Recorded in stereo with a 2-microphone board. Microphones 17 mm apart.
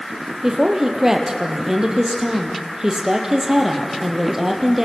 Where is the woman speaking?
25° right (ahead or behind), 4 m.